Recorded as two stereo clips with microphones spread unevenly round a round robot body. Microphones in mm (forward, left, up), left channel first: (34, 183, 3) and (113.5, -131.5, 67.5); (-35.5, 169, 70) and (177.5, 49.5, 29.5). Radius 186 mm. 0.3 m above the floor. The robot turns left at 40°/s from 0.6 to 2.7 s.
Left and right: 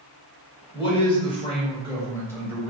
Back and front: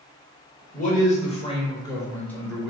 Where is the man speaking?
120° left, 1.2 m; by 2.7 s 40° left, 1.2 m.